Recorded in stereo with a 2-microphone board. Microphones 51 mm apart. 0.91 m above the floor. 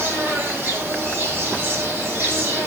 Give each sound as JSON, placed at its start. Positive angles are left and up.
{"t": 0.0, "sound": "an insect", "side_deg": -35, "distance_m": 5.5}